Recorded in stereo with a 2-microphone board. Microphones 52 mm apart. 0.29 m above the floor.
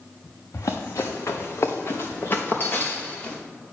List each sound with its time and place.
0.5 s running footsteps: 70° left (ahead or behind), 1.1 m; by 3.4 s 30° left (ahead or behind), 1.9 m